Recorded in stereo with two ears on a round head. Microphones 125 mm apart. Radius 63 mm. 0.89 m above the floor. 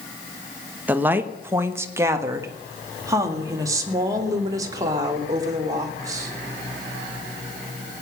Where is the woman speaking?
15° right (ahead or behind), 1.1 m; by 6.3 s 25° right (ahead or behind), 3.5 m.